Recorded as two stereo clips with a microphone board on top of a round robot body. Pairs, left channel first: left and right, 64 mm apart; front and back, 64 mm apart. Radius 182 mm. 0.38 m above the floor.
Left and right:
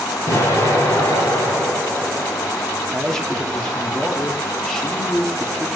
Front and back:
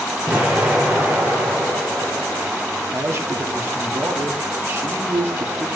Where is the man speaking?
170° left, 1.4 m.